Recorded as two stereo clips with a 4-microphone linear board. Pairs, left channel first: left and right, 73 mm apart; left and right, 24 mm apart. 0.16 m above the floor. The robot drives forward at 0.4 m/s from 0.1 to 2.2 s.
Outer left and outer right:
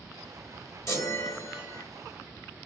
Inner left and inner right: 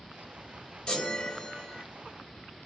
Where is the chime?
45° left (ahead or behind), 2.5 m; by 1.8 s 50° left (ahead or behind), 2.5 m.